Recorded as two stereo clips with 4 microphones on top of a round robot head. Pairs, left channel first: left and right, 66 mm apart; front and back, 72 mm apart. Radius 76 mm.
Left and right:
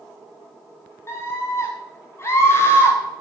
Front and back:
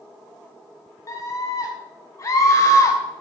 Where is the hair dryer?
I don't hear a hair dryer.